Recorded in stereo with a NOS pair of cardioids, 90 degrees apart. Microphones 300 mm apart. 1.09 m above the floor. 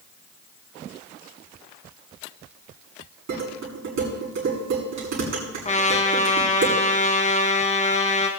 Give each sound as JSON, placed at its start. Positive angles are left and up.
{"t": 3.3, "sound": "dishes clattering", "azimuth_deg": -65, "distance_m": 7.0}
{"t": 5.7, "sound": "a trumpet", "azimuth_deg": 25, "distance_m": 2.5}